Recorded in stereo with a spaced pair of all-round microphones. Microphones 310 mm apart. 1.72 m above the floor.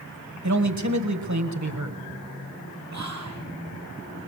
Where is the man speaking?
60° right (ahead or behind), 1.5 m.